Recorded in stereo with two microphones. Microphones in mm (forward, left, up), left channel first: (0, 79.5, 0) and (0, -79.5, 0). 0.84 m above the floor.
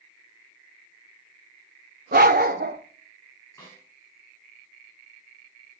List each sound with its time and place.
2.1 s a dog barking: 75° right (ahead or behind), 0.9 m
3.6 s a snare drum: 15° left (ahead or behind), 9 m